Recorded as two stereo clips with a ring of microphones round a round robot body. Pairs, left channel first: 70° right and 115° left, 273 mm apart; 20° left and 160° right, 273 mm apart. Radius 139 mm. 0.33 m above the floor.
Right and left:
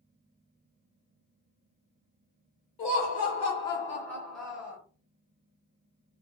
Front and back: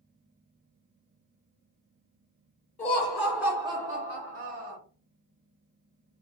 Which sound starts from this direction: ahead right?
Laughter, at 2.8 s.